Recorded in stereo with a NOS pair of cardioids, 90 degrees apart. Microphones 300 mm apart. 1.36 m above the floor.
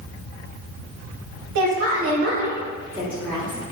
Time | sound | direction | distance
1.6 | a woman speaking | 65° right | 0.9 m